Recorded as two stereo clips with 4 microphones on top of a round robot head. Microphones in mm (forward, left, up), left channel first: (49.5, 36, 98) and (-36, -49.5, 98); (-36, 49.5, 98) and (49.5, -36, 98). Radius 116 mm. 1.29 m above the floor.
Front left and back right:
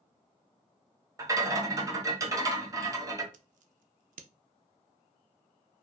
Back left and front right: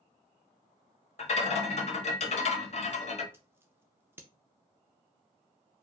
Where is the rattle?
160° left, 1.2 m.